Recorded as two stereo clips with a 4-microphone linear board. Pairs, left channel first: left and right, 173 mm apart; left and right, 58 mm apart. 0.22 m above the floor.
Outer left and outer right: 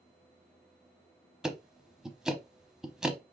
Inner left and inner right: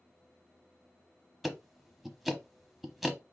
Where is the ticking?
5° right (ahead or behind), 0.8 m.